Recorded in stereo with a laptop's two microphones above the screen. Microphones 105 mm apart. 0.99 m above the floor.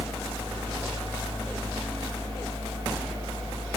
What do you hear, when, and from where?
0.0 s a fan: 50° right (ahead or behind), 2 m